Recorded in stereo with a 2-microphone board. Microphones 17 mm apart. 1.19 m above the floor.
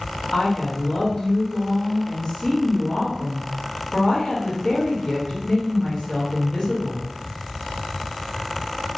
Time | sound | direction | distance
0.3 | a woman speaking | 55° left (ahead or behind) | 2.0 m